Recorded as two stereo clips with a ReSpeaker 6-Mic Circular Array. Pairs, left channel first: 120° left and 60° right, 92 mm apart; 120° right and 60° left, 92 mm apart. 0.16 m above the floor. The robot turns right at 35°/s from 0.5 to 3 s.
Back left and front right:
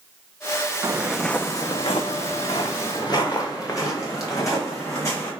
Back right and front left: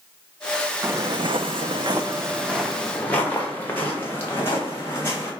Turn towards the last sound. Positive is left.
turn(degrees=180)